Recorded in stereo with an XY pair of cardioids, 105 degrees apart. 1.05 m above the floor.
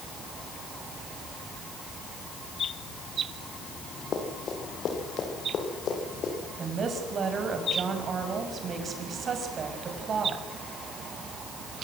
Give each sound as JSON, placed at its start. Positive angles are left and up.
{"t": 4.1, "sound": "running footsteps", "azimuth_deg": 55, "distance_m": 6.5}
{"t": 6.6, "sound": "a woman speaking", "azimuth_deg": -50, "distance_m": 6.0}